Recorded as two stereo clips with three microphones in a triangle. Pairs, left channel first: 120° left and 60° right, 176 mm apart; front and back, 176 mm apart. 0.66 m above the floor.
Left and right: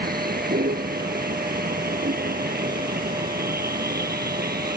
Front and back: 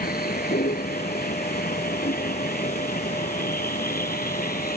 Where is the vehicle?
30° right; by 4.8 s 35° right.